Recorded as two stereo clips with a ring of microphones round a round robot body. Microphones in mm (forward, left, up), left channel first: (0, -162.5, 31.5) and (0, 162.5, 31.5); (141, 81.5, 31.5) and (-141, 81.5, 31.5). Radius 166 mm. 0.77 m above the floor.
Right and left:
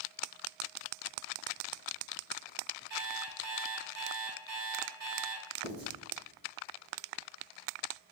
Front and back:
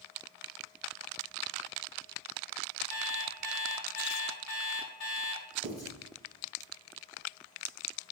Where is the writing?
80° left, 1.9 m.